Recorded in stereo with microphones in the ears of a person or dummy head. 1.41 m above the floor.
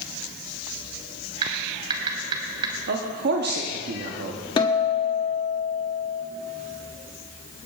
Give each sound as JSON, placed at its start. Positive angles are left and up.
{"t": 1.4, "sound": "typing on a keyboard", "side_deg": -35, "distance_m": 2.0}
{"t": 2.9, "sound": "a man speaking", "side_deg": -55, "distance_m": 0.9}
{"t": 4.6, "sound": "a guitar", "side_deg": 30, "distance_m": 1.2}